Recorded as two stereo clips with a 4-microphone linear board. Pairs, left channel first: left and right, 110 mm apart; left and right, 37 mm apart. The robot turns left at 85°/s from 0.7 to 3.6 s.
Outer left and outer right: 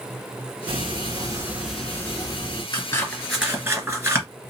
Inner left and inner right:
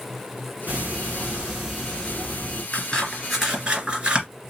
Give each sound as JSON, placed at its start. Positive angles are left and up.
{"t": 0.7, "sound": "ticking", "azimuth_deg": -90, "distance_m": 1.8}
{"t": 2.7, "sound": "scissors", "side_deg": 45, "distance_m": 2.0}